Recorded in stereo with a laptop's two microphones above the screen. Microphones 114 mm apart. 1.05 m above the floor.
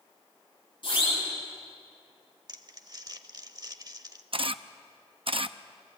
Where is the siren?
45° left (ahead or behind), 9.5 m.